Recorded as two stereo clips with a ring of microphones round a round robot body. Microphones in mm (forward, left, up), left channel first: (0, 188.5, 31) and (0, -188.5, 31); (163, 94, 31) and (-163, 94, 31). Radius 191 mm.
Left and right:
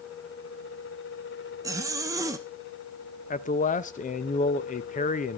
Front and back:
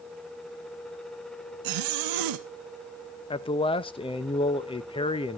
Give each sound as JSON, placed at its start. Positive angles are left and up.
{"t": 1.6, "sound": "a zipper", "azimuth_deg": -170, "distance_m": 0.9}
{"t": 3.3, "sound": "a man speaking", "azimuth_deg": 50, "distance_m": 0.7}